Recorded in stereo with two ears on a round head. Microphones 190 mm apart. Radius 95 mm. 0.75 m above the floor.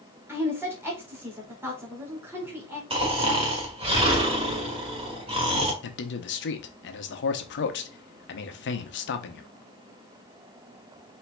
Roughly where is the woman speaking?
Centre.